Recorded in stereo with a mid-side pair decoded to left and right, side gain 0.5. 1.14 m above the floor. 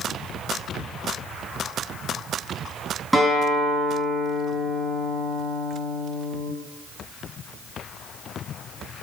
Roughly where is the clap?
No clap in this recording.